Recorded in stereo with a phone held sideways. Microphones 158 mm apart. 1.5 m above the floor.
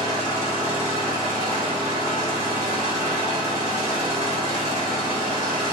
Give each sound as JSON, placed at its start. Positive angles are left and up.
{"t": 0.0, "sound": "an engine running", "side_deg": -50, "distance_m": 1.4}